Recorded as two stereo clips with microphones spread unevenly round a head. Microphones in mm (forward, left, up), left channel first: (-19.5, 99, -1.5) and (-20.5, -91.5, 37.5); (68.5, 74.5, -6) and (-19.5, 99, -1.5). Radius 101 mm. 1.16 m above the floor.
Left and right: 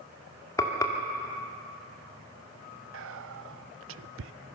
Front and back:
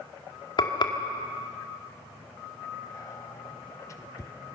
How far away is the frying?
About 2.5 m.